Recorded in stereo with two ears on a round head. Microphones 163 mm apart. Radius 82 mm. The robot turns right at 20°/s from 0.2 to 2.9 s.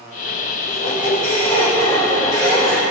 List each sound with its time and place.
0.7 s a squeak: 125° left, 2 m; by 2.8 s 170° left, 2 m